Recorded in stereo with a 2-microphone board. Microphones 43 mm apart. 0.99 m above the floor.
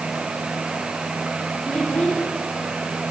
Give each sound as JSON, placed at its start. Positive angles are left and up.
{"t": 1.6, "sound": "a child speaking", "side_deg": 40, "distance_m": 6.0}